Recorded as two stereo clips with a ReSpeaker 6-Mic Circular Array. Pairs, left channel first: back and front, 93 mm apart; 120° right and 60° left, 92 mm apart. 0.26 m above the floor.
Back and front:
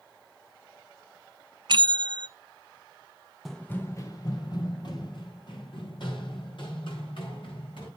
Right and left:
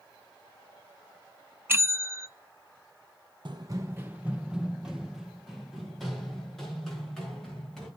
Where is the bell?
Straight ahead, 0.6 m.